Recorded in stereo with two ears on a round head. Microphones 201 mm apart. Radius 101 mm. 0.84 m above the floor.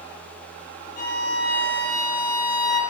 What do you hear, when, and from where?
1.0 s a violin: 50° left (ahead or behind), 3 m